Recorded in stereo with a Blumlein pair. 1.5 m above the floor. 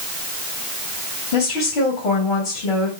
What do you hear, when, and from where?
1.3 s a woman speaking: 45° left, 4 m